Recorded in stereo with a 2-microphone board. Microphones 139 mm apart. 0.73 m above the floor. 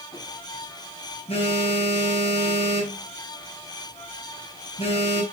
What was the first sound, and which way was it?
A phone buzzing, 45° left (ahead or behind).